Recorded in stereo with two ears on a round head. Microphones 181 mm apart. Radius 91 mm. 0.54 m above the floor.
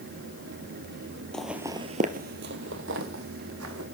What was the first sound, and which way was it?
Footsteps, 5° left (ahead or behind).